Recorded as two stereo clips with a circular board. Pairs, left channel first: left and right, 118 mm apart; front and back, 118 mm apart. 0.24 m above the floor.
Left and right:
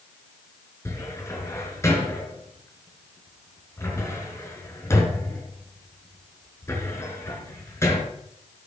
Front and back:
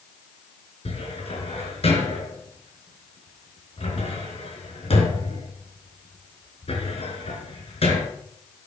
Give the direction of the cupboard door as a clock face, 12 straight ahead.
11 o'clock.